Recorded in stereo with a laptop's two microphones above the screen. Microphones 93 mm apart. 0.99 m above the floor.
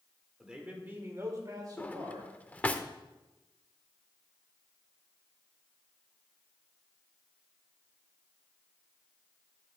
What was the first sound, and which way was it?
A man speaking, 5° right (ahead or behind).